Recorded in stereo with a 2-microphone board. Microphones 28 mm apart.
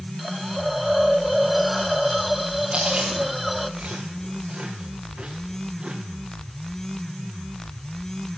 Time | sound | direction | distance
0.2 | a hiss | centre (ahead or behind) | 1.2 m
2.7 | chewing | 30° right (ahead or behind) | 6 m